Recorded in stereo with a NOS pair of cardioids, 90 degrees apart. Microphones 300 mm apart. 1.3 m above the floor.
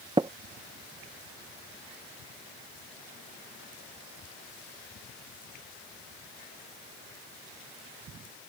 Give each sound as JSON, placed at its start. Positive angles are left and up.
{"t": 0.2, "sound": "tapping", "azimuth_deg": -15}